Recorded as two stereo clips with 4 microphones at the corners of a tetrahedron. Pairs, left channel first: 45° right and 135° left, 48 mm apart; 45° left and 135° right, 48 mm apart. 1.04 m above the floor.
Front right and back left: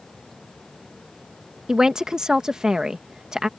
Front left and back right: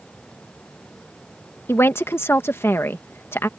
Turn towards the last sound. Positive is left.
turn(degrees=65)